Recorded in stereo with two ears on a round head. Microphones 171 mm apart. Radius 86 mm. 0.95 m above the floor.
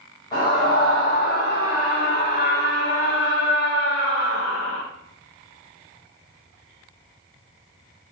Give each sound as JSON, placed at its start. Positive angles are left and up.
{"t": 0.3, "sound": "a scream", "side_deg": 25, "distance_m": 5.5}